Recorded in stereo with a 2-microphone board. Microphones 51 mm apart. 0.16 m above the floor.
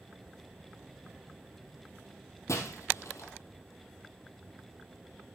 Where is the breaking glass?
70° left (ahead or behind), 2.5 m.